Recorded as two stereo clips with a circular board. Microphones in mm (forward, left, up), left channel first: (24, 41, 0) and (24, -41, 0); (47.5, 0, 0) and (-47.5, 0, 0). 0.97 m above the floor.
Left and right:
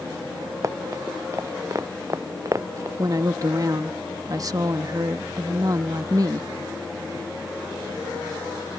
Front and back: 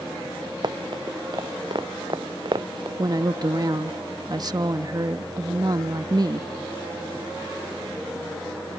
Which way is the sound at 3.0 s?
135° right.